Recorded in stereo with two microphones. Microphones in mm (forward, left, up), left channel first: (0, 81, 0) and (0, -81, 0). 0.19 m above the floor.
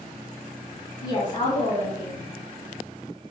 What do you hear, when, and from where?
1.0 s a woman speaking: 25° left (ahead or behind), 1.6 m